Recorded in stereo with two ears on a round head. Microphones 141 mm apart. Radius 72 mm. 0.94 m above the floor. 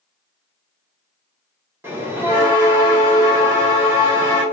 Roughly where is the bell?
Centre.